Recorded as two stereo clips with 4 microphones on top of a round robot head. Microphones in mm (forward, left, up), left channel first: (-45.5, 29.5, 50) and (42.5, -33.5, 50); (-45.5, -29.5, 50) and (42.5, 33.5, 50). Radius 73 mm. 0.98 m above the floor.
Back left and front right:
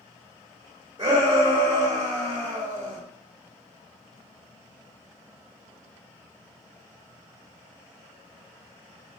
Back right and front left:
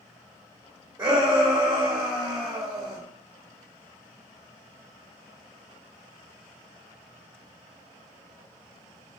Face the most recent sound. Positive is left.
turn(degrees=0)